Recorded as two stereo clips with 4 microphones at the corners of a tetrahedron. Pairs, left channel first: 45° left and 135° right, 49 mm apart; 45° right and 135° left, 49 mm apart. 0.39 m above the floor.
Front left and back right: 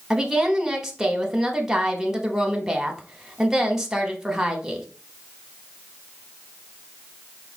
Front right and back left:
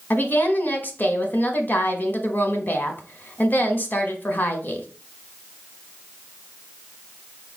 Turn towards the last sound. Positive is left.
turn(degrees=-60)